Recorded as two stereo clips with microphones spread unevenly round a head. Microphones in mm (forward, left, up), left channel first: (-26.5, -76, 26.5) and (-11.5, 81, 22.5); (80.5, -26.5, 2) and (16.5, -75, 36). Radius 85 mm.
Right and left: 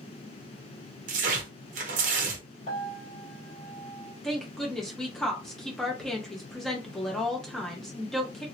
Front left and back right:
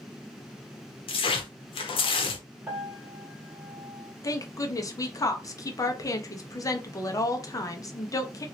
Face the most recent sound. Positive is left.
turn(degrees=-10)